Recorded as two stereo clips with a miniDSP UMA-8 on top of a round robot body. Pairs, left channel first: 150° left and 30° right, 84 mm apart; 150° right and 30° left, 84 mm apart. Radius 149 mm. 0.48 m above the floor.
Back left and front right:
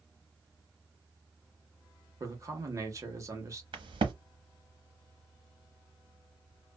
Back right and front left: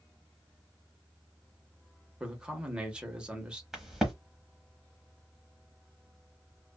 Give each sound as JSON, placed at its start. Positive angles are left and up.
{"t": 2.2, "sound": "a man speaking", "azimuth_deg": -45, "distance_m": 1.3}
{"t": 3.7, "sound": "a crack", "azimuth_deg": -55, "distance_m": 0.9}